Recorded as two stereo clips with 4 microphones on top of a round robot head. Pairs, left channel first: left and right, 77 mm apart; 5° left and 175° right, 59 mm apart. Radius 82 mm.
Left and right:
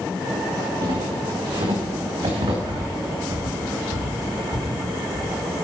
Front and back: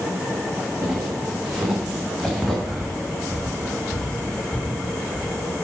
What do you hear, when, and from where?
0.8 s footsteps: 110° right, 5 m; by 2.5 s 80° right, 4.5 m
2.6 s breathing: 70° right, 2.5 m